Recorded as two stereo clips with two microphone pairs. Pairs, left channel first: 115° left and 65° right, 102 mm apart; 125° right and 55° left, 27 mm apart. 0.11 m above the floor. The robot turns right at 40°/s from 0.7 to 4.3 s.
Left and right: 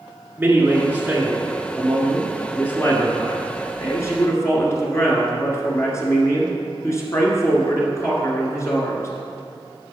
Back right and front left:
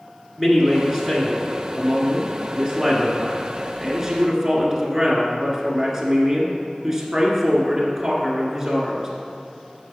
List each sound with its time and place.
0.4 s a man speaking: 15° right, 1.6 m; by 9.1 s 125° left, 1.6 m